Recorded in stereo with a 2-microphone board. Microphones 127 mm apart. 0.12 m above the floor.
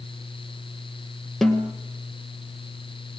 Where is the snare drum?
5° left (ahead or behind), 2 m.